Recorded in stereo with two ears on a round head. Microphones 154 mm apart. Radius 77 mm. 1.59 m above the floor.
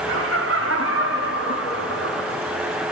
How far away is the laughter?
About 2 m.